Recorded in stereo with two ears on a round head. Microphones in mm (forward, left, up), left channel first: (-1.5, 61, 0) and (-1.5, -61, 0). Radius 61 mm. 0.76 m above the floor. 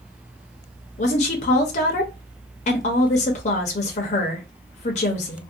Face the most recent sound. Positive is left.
turn(degrees=50)  # may be behind; listen again after turning